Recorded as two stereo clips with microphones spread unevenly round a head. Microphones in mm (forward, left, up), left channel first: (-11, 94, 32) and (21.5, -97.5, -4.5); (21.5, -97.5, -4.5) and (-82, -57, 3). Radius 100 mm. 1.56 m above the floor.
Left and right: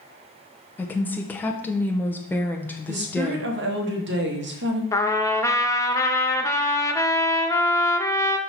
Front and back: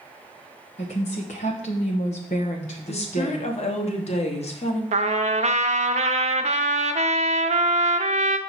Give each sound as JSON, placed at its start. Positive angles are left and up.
{"t": 0.8, "sound": "a woman speaking", "azimuth_deg": 25, "distance_m": 0.9}
{"t": 2.9, "sound": "a woman speaking", "azimuth_deg": -45, "distance_m": 1.3}
{"t": 4.9, "sound": "a trumpet", "azimuth_deg": 175, "distance_m": 0.5}